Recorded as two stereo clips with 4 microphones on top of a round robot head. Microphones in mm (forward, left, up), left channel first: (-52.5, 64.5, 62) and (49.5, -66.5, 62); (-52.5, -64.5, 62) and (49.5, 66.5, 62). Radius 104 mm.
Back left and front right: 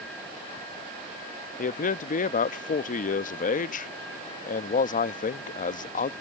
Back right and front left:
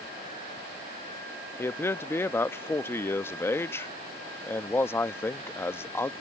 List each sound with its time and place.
1.6 s a man speaking: 160° left